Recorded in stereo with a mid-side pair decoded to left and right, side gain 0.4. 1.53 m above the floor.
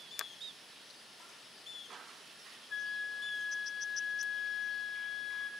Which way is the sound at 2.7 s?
50° left.